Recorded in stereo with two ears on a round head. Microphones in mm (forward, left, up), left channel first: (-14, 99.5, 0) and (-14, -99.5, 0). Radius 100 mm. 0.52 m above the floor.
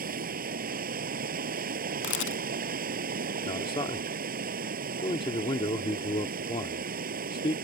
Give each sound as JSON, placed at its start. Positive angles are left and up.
{"t": 0.0, "sound": "running water", "side_deg": -45}
{"t": 2.0, "sound": "a camera shutter", "side_deg": 55}
{"t": 3.5, "sound": "a man speaking", "side_deg": 25}